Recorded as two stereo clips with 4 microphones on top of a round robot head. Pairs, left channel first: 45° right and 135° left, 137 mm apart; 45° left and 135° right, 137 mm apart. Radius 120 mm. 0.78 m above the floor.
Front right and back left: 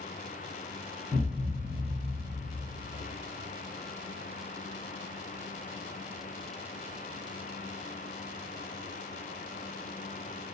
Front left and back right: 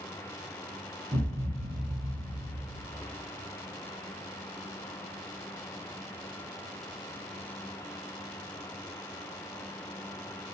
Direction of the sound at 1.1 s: 175° right.